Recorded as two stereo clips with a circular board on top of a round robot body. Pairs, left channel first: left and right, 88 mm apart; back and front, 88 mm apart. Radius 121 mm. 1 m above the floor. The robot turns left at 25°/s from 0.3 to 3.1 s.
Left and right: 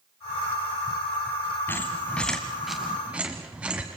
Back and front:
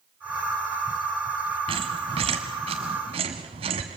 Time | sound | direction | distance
1.7 | a squeak | 25° left | 1.3 m